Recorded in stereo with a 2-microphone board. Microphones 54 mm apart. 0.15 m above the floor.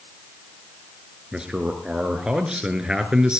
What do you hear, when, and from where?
1.3 s a man speaking: 15° right (ahead or behind), 2.5 m